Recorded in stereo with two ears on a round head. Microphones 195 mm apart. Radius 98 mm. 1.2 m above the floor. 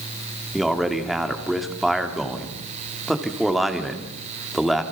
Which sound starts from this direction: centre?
A man speaking, at 0.5 s.